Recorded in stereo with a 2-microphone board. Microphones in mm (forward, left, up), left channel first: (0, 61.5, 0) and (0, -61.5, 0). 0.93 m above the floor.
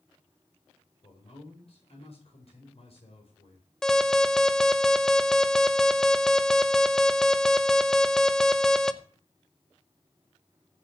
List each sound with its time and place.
1.0 s a man speaking: 55° left (ahead or behind), 4.5 m
3.8 s an alarm: 5° left (ahead or behind), 0.8 m